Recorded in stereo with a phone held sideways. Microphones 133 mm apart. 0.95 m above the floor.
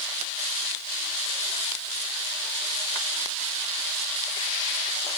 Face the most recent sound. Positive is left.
No sound to turn to.